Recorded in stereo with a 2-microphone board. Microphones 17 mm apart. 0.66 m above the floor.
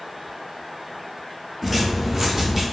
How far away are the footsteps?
About 0.7 m.